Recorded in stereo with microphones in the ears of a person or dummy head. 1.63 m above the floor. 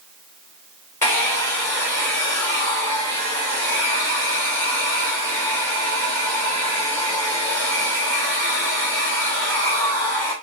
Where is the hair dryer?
10° left (ahead or behind), 1.9 m.